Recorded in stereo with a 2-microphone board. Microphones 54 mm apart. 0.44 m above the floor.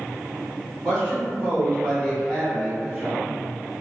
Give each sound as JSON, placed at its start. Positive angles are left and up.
{"t": 0.8, "sound": "a man speaking", "side_deg": 10, "distance_m": 1.7}